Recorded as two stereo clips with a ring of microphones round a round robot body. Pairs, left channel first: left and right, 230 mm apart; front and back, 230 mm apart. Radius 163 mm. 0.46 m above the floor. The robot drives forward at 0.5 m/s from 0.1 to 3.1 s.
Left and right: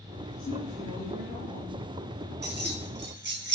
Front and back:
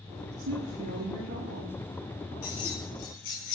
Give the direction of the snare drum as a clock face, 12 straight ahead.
No snare drum in this recording.